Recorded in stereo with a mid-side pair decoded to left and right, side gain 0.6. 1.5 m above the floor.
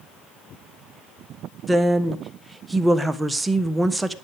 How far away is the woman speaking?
About 1.4 m.